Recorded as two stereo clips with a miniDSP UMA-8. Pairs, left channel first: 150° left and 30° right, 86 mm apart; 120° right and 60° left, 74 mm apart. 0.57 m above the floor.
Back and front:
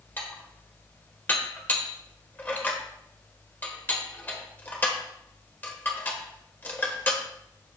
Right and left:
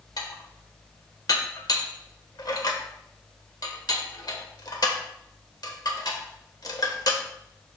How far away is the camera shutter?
No camera shutter in this recording.